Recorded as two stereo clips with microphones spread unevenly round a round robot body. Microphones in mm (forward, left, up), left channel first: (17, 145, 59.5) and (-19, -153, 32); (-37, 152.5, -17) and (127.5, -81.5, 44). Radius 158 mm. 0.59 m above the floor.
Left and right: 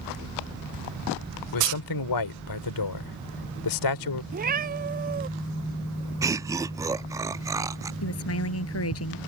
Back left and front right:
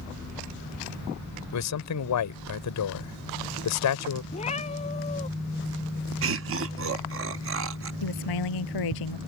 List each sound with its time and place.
1.5 s a man speaking: 105° left
4.3 s a cat meowing: 160° right
6.2 s laughter: 35° right
8.0 s a woman speaking: 130° left